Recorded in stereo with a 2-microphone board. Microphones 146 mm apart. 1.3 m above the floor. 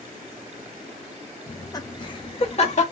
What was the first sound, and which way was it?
Laughter, 15° left (ahead or behind).